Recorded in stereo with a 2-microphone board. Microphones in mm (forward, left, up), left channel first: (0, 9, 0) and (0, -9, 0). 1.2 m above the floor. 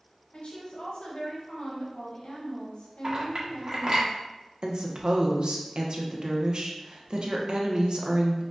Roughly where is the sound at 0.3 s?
Left.